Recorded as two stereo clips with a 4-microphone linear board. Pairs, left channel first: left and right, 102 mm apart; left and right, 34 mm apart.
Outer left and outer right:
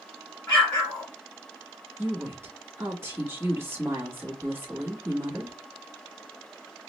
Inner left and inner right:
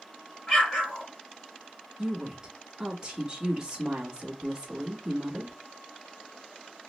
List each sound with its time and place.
0.5 s an explosion: 15° left (ahead or behind), 2.5 m
2.0 s a woman speaking: 25° right (ahead or behind), 1.1 m